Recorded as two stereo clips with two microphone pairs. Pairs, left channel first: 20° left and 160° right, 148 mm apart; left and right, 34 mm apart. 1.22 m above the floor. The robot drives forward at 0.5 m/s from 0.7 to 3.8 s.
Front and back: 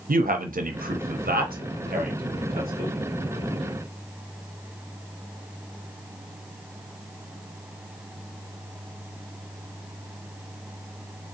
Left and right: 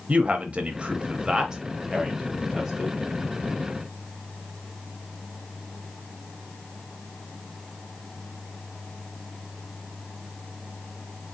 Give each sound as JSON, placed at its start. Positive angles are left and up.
{"t": 0.1, "sound": "a man speaking", "azimuth_deg": -140, "distance_m": 0.5}